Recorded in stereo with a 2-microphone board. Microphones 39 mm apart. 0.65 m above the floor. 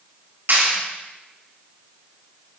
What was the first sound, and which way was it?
A clap, 65° right (ahead or behind).